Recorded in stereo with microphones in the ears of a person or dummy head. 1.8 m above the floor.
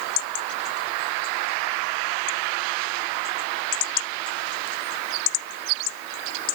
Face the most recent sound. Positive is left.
No sound to turn to.